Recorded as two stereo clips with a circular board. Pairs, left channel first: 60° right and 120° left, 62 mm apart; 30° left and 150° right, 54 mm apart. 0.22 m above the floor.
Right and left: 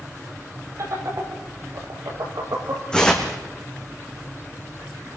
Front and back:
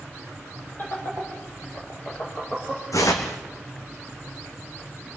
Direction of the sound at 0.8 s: 85° left.